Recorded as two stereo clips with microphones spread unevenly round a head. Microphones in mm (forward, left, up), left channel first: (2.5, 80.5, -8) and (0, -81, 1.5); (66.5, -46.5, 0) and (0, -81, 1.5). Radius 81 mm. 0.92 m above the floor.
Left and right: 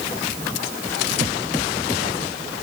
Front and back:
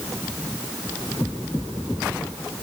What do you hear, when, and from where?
Only background noise.